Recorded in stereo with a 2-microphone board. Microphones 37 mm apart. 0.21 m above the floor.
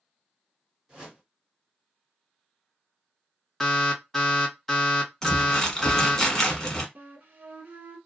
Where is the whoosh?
25° right (ahead or behind), 1.9 m.